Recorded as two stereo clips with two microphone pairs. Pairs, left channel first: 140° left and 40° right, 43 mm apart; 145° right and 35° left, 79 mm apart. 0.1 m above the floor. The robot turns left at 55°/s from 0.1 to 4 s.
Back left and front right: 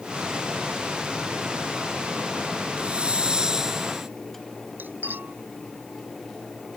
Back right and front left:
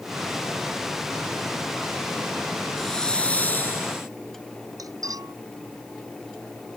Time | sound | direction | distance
2.8 | a hiss | 60° right | ?
4.8 | cutlery clinking | straight ahead | ?